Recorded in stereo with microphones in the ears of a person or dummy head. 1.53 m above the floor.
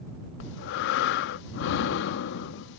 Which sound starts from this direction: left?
Breathing, at 0.4 s.